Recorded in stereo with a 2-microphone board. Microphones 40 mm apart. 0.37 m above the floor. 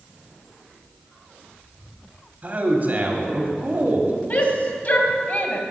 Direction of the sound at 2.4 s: 40° right (ahead or behind).